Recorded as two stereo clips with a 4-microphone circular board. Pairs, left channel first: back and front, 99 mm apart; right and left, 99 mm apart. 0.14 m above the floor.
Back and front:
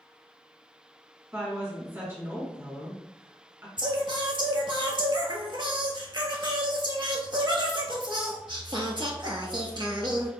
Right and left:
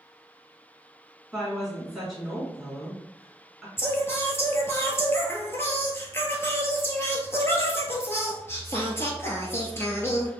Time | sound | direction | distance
1.3 | a woman speaking | 10° left | 1.7 m
3.8 | singing | 30° right | 0.9 m